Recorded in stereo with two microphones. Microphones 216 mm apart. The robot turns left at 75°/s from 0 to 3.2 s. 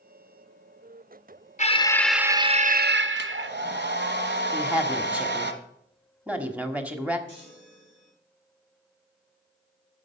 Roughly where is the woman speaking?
Centre.